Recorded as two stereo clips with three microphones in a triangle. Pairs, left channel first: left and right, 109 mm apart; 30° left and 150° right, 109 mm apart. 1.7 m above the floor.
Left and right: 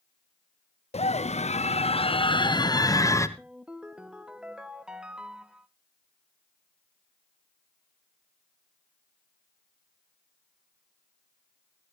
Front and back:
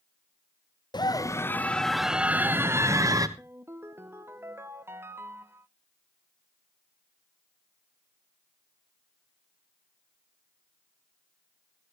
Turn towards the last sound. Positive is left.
turn(degrees=-160)